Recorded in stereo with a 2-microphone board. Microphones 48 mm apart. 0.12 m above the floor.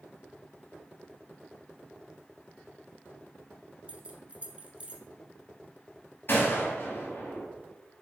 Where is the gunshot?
45° left (ahead or behind), 2.5 m.